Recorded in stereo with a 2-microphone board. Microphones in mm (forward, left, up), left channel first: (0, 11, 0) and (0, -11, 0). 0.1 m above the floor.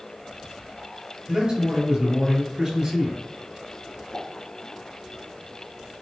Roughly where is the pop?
Left.